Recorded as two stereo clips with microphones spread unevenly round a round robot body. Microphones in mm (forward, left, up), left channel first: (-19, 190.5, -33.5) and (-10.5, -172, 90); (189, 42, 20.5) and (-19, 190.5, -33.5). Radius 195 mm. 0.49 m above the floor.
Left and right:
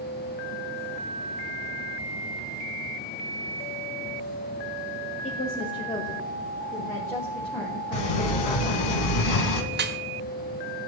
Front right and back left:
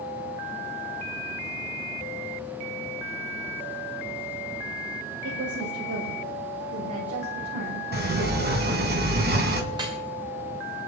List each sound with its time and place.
5.2 s a woman speaking: 150° left, 1.8 m; by 8.9 s straight behind, 3.5 m
7.9 s a sliding door: 95° left, 2.5 m
9.7 s dripping: 160° right, 1.6 m